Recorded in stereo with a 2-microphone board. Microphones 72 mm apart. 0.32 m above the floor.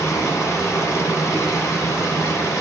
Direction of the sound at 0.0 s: 45° left (ahead or behind).